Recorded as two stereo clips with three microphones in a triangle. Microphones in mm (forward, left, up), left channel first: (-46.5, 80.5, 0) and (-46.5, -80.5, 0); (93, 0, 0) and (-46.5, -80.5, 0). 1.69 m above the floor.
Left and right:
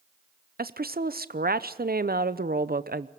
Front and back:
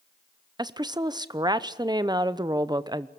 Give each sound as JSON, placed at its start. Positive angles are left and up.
{"t": 0.6, "sound": "a woman speaking", "azimuth_deg": -85, "distance_m": 0.8}